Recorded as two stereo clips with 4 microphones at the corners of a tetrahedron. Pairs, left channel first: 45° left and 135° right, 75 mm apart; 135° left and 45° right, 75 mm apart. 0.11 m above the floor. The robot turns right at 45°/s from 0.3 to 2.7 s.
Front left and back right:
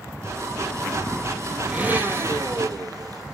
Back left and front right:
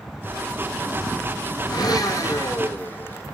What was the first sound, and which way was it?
A blender, 150° left.